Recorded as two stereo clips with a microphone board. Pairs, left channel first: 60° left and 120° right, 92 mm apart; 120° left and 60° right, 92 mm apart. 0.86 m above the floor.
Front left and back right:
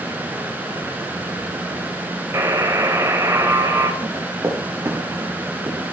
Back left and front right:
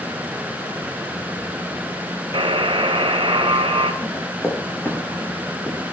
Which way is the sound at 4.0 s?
170° right.